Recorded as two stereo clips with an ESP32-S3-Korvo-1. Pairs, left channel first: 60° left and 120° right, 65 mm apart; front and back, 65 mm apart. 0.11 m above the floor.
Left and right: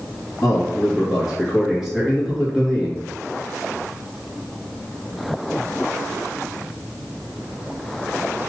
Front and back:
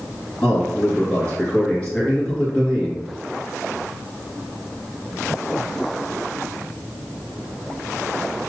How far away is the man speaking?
About 1.8 m.